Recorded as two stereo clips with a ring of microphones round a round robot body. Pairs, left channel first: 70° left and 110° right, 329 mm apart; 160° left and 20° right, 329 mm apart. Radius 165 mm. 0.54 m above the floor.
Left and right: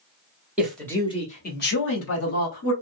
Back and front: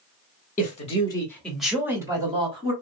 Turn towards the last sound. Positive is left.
turn(degrees=45)